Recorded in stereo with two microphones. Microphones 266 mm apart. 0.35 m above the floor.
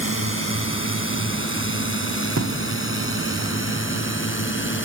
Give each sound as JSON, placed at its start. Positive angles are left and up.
{"t": 0.0, "sound": "a drone", "side_deg": 50}
{"t": 2.4, "sound": "a thud", "side_deg": -75}